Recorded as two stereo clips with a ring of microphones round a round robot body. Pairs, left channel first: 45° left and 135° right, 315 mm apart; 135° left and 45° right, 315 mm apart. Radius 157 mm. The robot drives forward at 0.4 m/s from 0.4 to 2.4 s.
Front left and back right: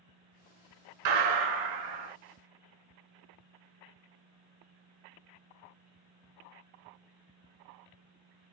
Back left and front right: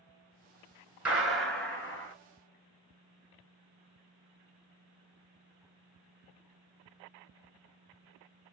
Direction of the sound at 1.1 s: 130° right.